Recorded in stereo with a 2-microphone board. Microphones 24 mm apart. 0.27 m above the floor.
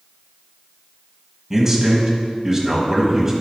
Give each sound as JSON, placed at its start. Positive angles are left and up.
{"t": 1.5, "sound": "a man speaking", "side_deg": -15, "distance_m": 1.5}